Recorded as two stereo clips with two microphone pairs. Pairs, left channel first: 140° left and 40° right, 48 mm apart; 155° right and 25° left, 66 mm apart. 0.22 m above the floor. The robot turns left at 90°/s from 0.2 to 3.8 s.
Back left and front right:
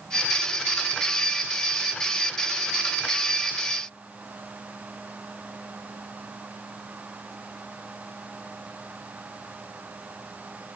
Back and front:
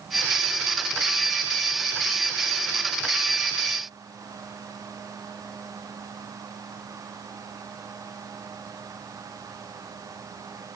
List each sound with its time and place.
Only background noise.